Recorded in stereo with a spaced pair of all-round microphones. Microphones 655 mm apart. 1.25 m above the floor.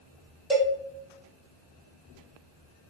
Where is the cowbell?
Centre (ahead or behind), 1.4 m.